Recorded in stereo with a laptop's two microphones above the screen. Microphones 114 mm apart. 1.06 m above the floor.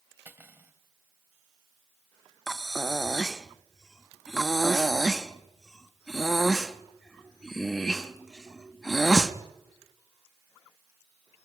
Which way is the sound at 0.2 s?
20° right (ahead or behind).